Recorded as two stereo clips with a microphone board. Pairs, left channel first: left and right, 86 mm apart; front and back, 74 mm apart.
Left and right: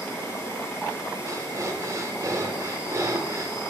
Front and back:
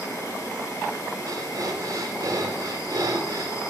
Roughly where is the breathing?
Behind right.